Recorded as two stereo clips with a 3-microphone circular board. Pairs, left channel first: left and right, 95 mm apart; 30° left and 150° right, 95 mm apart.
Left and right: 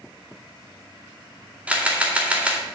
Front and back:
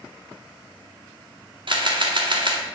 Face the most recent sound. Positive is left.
turn(degrees=-165)